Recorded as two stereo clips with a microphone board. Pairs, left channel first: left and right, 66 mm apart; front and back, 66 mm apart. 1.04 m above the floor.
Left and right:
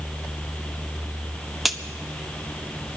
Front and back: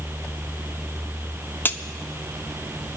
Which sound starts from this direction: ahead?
A crack, at 1.6 s.